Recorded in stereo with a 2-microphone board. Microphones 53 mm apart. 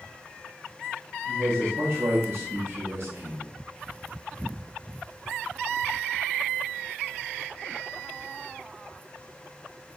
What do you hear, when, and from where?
1.2 s a man speaking: 75° right (ahead or behind), 3 m